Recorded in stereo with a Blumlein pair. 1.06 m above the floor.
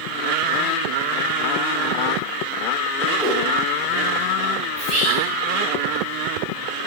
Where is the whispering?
35° right, 1.6 m.